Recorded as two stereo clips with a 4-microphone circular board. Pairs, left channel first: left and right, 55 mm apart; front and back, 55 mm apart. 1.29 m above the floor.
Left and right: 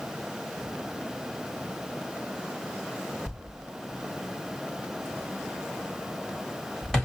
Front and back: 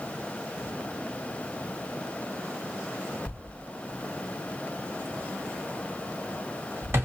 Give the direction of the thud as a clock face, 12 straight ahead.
6 o'clock.